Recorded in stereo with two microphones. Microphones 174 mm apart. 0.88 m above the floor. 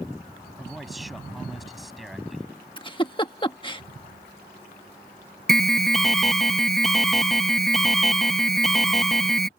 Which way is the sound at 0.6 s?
Centre (ahead or behind).